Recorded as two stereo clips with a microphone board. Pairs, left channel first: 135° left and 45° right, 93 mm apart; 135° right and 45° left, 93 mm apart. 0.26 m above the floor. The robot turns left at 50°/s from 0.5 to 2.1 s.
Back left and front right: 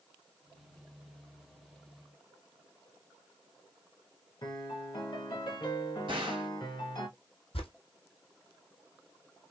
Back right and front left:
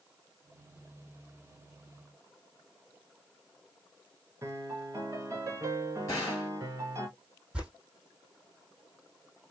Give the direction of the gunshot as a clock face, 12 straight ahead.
3 o'clock.